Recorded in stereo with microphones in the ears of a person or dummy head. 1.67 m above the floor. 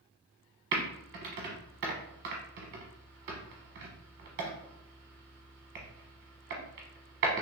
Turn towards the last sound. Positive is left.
turn(degrees=-50)  # may be behind; listen again after turning